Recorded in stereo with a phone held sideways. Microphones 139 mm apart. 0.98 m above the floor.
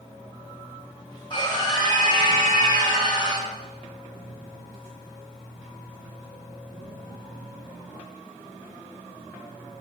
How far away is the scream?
About 4 m.